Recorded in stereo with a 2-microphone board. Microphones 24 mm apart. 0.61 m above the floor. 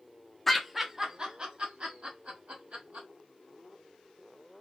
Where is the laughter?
10° left (ahead or behind), 0.6 m; by 3.1 s 65° right (ahead or behind), 1.4 m.